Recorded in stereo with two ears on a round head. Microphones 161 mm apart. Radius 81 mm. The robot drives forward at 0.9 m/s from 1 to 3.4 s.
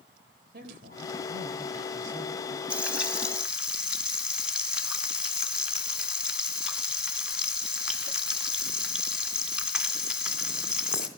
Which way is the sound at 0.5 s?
65° right (ahead or behind).